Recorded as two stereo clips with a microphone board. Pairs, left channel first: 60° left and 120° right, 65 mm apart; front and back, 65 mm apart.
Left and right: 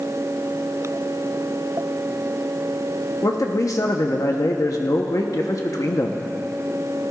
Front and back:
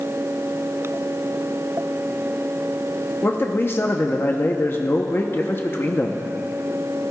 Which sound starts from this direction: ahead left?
A man speaking, at 3.2 s.